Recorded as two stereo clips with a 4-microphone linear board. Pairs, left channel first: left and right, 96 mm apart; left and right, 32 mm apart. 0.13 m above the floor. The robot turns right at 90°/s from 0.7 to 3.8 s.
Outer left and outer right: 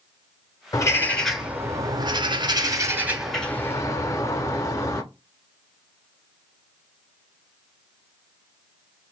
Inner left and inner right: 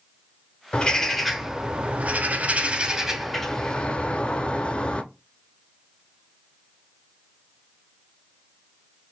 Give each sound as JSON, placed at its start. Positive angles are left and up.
{"t": 0.7, "sound": "a bird", "azimuth_deg": 130, "distance_m": 0.6}